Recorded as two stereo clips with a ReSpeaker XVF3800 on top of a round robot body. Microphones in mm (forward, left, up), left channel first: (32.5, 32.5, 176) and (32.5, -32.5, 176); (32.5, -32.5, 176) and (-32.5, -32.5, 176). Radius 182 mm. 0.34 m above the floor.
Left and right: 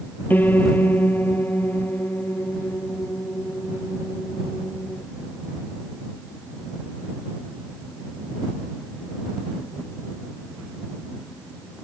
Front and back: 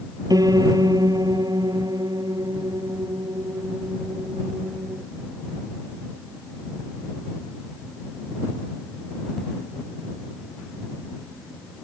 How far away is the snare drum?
I don't hear a snare drum.